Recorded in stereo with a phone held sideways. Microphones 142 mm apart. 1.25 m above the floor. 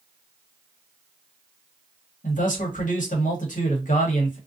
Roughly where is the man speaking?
Left.